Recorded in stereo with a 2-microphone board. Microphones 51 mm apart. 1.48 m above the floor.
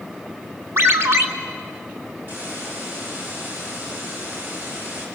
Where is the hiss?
40° right (ahead or behind), 6 m.